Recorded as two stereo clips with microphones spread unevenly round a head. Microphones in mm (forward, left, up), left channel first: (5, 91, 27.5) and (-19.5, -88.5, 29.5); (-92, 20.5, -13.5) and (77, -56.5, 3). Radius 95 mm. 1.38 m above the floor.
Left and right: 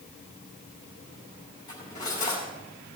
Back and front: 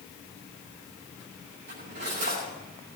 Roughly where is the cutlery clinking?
Ahead.